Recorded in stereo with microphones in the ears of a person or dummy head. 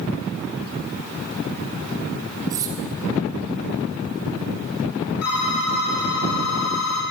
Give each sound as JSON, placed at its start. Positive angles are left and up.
{"t": 2.5, "sound": "cutlery clinking", "side_deg": -20, "distance_m": 1.4}
{"t": 5.2, "sound": "a phone ringing", "side_deg": 85, "distance_m": 2.0}